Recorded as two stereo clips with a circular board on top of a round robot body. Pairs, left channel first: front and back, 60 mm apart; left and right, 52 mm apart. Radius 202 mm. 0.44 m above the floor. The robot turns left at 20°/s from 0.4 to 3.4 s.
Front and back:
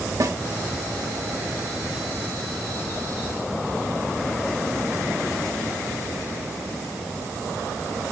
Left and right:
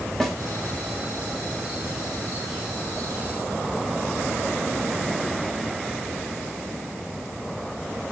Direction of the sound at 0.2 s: 175° left.